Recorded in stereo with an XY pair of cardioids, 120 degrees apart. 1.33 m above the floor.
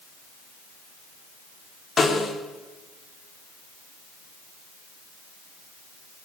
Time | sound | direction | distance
2.0 | a snare drum | 35° left | 3.5 m